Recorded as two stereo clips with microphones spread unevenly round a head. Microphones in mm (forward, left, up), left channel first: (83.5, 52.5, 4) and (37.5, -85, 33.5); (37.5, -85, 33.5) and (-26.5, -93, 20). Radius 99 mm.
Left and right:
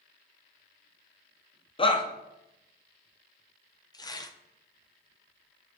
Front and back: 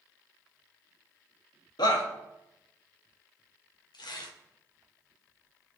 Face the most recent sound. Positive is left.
turn(degrees=10)